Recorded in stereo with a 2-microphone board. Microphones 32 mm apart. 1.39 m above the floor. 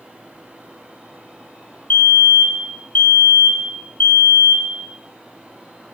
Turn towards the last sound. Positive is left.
turn(degrees=65)  # may be behind; listen again after turning